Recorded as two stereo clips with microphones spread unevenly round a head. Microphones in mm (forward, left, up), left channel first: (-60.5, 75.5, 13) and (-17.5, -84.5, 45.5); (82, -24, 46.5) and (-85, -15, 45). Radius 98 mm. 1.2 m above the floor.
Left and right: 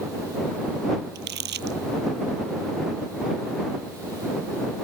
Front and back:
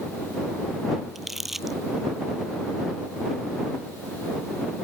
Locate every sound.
1.1 s crumpling: 95° right